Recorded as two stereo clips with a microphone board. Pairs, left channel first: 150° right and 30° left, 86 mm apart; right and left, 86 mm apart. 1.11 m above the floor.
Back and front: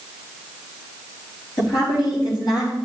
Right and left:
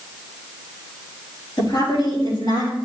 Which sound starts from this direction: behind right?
A woman speaking, at 1.6 s.